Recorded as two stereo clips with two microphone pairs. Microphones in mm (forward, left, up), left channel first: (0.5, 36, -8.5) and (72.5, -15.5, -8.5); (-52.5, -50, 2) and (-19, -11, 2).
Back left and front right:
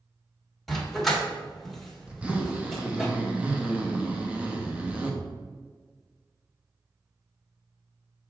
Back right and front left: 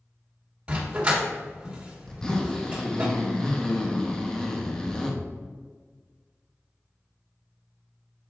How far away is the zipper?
About 1.0 m.